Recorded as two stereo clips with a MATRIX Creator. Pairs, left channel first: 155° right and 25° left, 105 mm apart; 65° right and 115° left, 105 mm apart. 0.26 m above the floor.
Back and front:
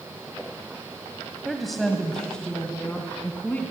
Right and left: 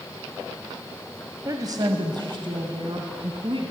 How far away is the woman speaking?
About 1.5 m.